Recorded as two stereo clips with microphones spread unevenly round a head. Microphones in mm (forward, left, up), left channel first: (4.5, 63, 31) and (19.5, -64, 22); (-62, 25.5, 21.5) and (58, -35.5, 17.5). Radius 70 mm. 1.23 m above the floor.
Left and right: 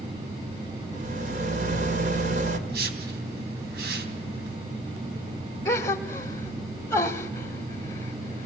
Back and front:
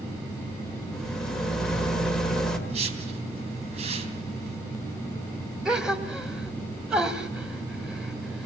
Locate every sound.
0.9 s a rattle: 120° right, 2 m
2.7 s a whoosh: 75° right, 3 m
5.7 s a gasp: 55° left, 1.1 m